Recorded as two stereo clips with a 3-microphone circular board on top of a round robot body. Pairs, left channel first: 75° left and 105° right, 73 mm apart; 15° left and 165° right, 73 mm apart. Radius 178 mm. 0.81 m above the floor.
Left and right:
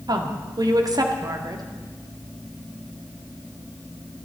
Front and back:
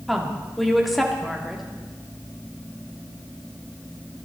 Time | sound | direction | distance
0.1 | a woman speaking | 75° right | 2 m